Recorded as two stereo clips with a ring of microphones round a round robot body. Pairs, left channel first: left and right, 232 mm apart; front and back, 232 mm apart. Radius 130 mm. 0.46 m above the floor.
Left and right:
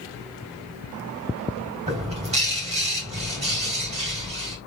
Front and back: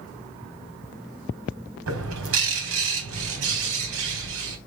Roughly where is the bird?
Behind right.